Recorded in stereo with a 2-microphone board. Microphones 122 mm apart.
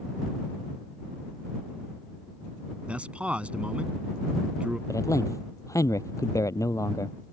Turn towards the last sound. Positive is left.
turn(degrees=25)  # may be behind; listen again after turning